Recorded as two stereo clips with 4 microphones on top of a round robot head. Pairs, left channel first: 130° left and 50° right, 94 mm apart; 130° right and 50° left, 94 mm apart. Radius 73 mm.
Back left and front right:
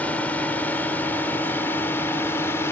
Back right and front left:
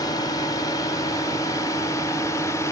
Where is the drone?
160° right; by 2.7 s 175° right.